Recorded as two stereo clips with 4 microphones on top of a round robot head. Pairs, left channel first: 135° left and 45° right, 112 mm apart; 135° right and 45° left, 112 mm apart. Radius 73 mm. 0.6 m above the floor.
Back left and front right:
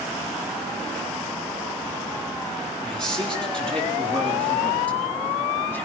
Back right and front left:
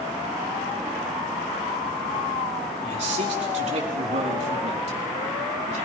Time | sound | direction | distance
2.8 | a man speaking | 50° left | 7 m